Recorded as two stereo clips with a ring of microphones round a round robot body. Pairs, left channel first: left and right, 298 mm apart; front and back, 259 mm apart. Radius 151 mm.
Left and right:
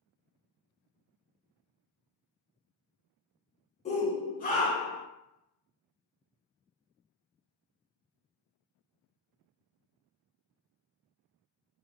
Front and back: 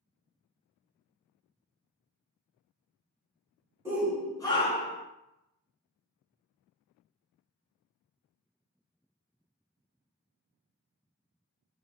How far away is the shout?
About 1.1 m.